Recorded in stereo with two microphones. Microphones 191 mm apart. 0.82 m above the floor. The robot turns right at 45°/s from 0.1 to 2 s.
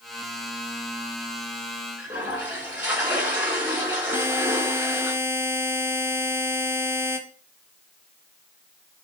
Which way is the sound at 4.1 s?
10° right (ahead or behind).